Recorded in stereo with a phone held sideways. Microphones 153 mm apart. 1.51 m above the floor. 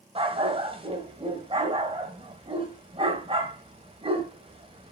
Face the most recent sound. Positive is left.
turn(degrees=-35)  # may be behind; listen again after turning